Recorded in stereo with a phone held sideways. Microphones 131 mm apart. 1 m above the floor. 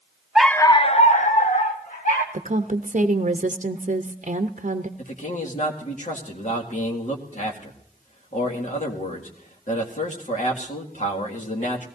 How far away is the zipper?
I don't hear a zipper.